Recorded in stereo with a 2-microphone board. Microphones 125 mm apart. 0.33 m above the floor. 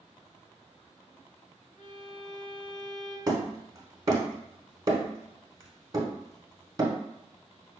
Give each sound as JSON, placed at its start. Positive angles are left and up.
{"t": 1.8, "sound": "a violin", "side_deg": 65, "distance_m": 1.2}
{"t": 3.3, "sound": "hammering", "side_deg": -30, "distance_m": 0.8}